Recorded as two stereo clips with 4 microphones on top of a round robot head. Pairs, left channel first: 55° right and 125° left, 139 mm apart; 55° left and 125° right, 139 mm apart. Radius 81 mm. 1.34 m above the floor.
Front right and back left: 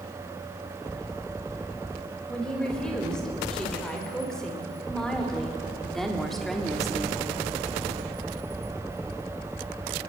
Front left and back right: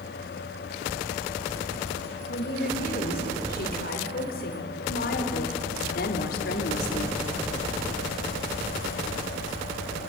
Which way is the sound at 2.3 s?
30° left.